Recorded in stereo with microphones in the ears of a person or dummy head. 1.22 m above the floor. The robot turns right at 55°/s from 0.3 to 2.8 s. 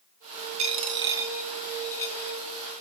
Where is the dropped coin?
45° right (ahead or behind), 0.7 m; by 2.4 s 20° left (ahead or behind), 0.7 m.